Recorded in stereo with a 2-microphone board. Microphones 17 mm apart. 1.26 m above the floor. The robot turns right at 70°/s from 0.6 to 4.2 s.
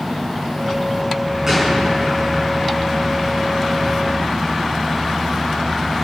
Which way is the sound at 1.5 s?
20° right (ahead or behind).